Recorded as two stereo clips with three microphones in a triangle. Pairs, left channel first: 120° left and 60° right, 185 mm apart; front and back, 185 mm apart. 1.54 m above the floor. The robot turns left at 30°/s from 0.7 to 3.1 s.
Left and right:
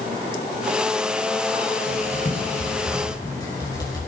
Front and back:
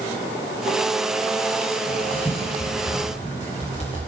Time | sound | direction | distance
1.9 | writing | 90° left | 6.5 m